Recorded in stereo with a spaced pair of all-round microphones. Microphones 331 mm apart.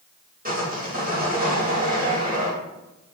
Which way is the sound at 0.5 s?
25° right (ahead or behind).